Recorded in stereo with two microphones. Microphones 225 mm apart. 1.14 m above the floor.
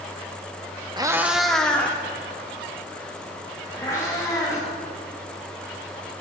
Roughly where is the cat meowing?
Centre.